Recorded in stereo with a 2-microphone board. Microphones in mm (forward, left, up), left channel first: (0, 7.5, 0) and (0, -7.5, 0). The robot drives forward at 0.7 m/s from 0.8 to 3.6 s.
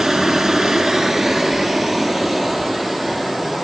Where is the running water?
35° right (ahead or behind), 0.7 m; by 3.6 s 10° right (ahead or behind), 2.5 m.